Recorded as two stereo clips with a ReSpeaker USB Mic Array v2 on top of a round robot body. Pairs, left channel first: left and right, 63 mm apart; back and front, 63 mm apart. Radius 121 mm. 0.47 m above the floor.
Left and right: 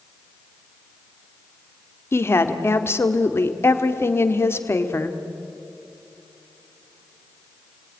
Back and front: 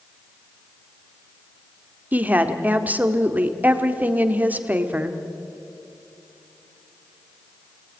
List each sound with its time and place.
2.1 s a woman speaking: 55° left, 2.0 m